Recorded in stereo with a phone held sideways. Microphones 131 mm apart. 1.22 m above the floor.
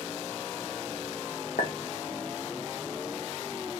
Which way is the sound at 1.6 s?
80° left.